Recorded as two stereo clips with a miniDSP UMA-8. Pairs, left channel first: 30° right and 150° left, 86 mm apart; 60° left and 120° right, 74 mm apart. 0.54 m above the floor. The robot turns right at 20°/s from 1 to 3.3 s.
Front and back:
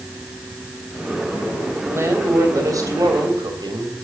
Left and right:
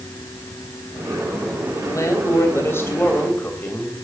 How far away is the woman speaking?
About 3 m.